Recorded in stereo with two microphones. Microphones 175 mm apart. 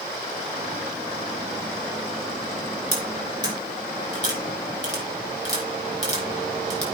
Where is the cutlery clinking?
40° left (ahead or behind), 4 m.